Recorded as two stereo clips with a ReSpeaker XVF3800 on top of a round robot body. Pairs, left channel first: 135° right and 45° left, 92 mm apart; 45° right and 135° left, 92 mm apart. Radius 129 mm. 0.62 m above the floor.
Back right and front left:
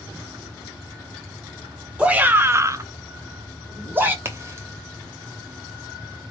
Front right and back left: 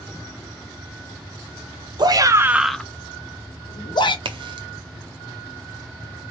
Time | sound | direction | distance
2.0 | a shout | 120° left | 0.8 m
4.2 | a crack | 105° left | 0.6 m